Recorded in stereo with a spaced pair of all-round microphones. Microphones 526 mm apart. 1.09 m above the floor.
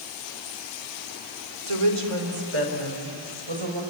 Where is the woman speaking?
85° right, 3 m; by 3.8 s 60° right (ahead or behind), 4.5 m.